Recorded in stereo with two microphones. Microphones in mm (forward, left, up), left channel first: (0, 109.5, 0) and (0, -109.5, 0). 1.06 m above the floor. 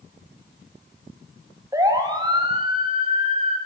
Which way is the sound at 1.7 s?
15° right (ahead or behind).